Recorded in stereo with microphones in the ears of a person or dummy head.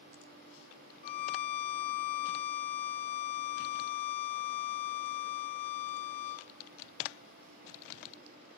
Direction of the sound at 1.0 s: 50° left (ahead or behind).